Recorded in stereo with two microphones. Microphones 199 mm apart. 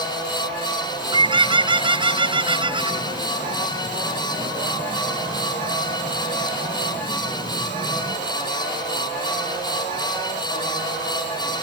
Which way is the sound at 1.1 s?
25° right (ahead or behind).